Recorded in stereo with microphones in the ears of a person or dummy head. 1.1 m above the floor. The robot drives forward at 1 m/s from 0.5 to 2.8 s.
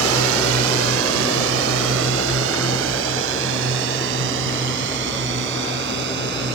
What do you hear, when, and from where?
0.0 s a drone: 80° right; by 6.5 s 65° right (ahead or behind)